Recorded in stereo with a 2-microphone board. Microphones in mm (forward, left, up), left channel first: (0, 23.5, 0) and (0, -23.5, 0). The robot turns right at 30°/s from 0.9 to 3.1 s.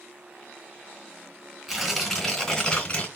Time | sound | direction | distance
1.7 | tearing paper | 5° right | 2.5 m